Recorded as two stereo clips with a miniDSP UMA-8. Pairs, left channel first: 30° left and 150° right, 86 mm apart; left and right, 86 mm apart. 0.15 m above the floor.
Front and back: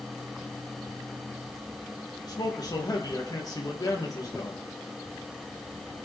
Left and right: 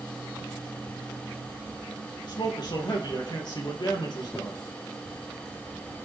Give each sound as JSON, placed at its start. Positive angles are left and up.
{"t": 2.2, "sound": "a man speaking", "azimuth_deg": 65, "distance_m": 4.0}